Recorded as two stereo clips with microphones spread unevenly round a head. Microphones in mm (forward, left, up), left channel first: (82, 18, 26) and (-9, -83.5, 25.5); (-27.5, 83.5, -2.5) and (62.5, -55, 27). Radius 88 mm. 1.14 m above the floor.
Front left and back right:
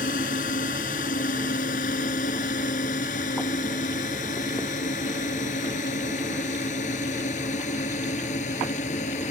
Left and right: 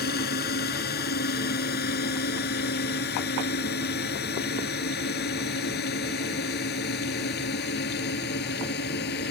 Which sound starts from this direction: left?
A drone, at 0.0 s.